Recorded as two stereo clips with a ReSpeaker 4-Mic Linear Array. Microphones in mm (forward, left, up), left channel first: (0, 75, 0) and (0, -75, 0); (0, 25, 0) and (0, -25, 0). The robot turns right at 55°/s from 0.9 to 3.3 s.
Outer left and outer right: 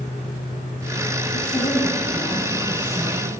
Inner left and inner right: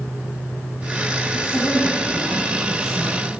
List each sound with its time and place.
1.3 s a woman speaking: 130° left, 9.5 m; by 3.3 s 125° right, 9.5 m